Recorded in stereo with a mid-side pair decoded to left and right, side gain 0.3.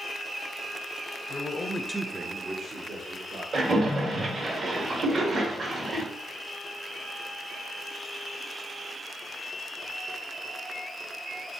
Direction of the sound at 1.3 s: 60° left.